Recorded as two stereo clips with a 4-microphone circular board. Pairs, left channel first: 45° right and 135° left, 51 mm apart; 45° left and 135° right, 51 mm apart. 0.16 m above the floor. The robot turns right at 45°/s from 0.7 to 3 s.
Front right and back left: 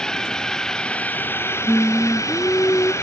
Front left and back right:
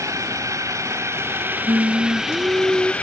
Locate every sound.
0.0 s a drone: 120° right; by 3.0 s 20° right
1.7 s singing: 125° right; by 2.9 s 70° right